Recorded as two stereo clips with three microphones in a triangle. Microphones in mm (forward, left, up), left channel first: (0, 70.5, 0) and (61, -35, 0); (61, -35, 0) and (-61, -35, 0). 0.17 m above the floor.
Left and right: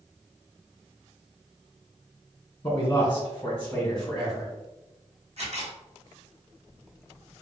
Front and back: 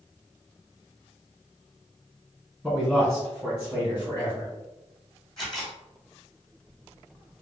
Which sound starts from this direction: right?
A camera shutter, at 5.4 s.